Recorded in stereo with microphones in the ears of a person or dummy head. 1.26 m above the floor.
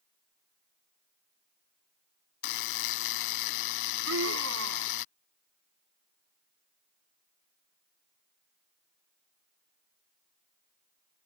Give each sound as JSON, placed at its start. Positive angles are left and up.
{"t": 2.4, "sound": "a buzzer", "side_deg": 65}
{"t": 4.0, "sound": "a scream", "side_deg": -80}